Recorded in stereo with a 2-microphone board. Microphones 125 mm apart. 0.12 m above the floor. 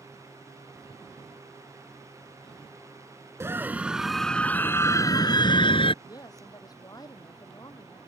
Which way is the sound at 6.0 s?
30° left (ahead or behind).